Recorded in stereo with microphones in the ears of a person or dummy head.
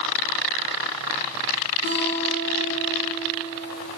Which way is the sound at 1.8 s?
55° left (ahead or behind).